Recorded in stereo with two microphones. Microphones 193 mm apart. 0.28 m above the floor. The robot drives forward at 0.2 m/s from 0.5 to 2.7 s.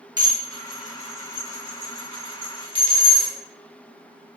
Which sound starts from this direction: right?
Dishes clattering, at 0.2 s.